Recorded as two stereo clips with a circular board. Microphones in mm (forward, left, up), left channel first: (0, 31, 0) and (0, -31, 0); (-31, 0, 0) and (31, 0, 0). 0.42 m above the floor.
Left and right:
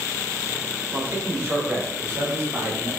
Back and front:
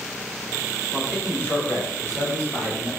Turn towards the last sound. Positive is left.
turn(degrees=-135)